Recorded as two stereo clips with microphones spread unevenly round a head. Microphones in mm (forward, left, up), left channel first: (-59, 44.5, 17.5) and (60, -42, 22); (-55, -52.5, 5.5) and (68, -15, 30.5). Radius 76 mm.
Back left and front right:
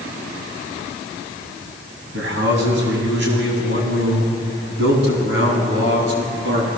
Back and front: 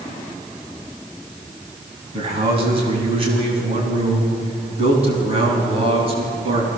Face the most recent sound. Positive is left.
turn(degrees=-25)